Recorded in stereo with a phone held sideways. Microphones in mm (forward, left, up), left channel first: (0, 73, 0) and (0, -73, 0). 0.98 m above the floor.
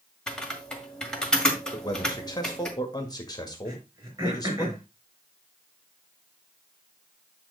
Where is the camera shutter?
I don't hear a camera shutter.